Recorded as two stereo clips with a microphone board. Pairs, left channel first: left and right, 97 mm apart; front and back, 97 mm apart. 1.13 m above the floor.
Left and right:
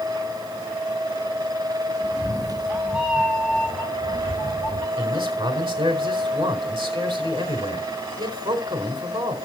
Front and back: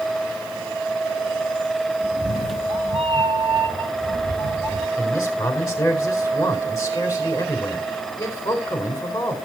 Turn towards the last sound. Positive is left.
turn(degrees=-60)